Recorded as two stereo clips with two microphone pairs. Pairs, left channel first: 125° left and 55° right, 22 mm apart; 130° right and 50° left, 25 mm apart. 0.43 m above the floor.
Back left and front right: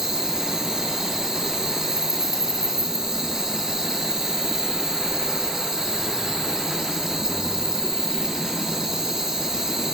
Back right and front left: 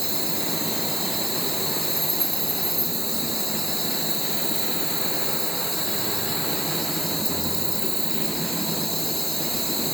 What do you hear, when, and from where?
0.0 s an insect: 40° right, 1.8 m